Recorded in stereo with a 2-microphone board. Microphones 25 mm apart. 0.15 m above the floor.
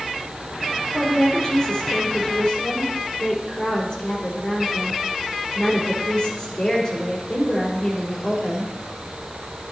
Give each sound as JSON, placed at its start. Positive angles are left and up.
{"t": 0.9, "sound": "a woman speaking", "side_deg": 35, "distance_m": 5.0}